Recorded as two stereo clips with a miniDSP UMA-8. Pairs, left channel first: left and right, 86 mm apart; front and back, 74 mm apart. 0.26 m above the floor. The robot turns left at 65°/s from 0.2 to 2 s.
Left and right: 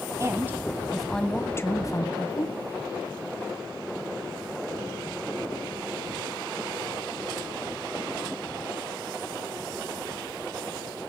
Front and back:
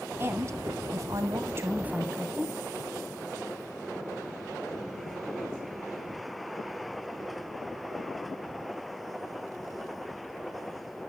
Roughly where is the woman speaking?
Behind right.